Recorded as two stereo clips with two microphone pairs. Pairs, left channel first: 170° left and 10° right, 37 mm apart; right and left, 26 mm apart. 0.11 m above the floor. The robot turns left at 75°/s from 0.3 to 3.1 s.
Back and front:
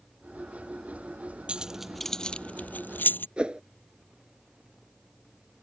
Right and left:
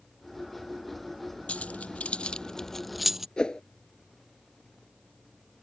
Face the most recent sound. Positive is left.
turn(degrees=-55)